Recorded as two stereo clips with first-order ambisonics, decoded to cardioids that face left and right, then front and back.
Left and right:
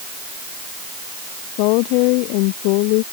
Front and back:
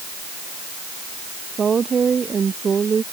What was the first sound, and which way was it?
A woman speaking, 110° left.